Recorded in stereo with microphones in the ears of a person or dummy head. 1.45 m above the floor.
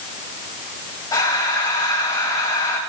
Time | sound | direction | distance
1.1 | breathing | 15° left (ahead or behind) | 5 m